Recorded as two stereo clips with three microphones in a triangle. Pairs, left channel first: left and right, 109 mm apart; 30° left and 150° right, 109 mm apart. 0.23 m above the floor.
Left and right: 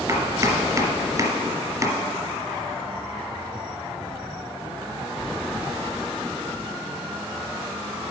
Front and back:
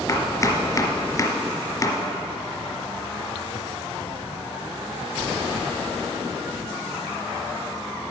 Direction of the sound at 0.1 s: 35° right.